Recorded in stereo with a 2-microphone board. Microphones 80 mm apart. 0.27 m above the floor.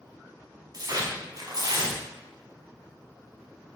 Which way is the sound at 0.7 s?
55° right (ahead or behind).